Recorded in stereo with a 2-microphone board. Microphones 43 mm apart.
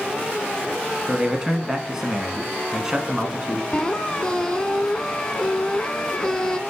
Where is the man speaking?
10° right (ahead or behind), 1.1 m.